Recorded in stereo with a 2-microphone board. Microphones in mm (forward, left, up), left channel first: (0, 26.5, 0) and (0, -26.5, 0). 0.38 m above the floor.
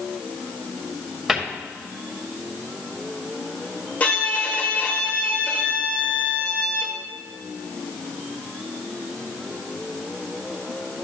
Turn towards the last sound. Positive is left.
turn(degrees=30)  # may be behind; listen again after turning